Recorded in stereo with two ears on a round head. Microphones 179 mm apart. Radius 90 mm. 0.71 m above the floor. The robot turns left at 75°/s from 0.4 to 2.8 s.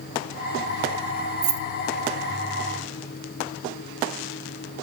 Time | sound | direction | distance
1.4 | keys jangling | 50° right (ahead or behind) | 0.5 m